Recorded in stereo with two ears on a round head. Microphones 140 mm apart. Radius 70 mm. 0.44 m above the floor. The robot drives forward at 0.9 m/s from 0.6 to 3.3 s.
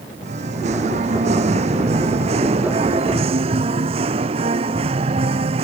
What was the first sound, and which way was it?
Singing, 45° right (ahead or behind).